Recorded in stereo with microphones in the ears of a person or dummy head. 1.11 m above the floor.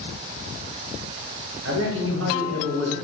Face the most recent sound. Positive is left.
turn(degrees=-70)  # may be behind; listen again after turning